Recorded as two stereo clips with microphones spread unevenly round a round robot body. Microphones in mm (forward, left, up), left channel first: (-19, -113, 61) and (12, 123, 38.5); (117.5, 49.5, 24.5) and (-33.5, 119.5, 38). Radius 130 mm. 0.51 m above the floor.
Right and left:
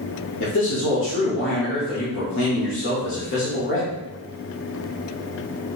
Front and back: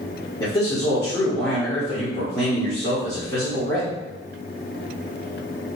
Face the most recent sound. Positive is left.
turn(degrees=-85)